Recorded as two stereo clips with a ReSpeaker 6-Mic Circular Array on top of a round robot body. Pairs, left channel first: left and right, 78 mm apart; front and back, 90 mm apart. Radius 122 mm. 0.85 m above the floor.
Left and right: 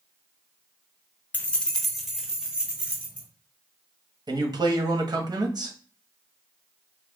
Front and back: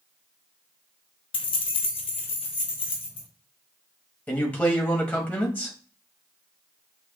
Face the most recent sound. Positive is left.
turn(degrees=-70)